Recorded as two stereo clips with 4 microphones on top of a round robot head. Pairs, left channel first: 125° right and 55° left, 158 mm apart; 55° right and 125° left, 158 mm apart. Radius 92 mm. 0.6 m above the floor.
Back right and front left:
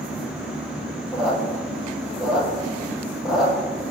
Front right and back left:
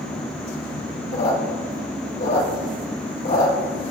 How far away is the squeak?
About 4.5 m.